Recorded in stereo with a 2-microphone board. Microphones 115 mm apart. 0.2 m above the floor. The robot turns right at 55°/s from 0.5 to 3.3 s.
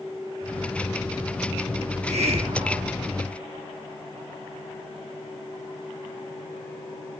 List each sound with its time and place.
1.8 s a hiss: 85° right, 2.5 m; by 3.0 s 25° right, 2.5 m